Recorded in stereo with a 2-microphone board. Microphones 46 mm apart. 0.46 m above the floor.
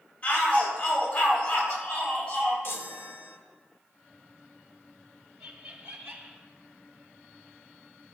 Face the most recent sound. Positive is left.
turn(degrees=-55)  # may be behind; listen again after turning